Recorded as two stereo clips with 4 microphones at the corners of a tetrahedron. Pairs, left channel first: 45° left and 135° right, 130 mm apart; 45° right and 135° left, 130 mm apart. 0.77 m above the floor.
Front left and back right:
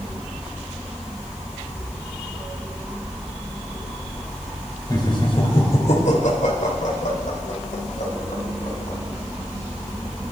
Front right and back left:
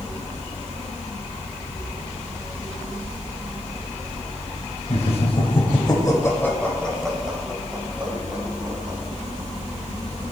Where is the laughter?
15° right, 3 m; by 9.0 s 65° left, 5 m.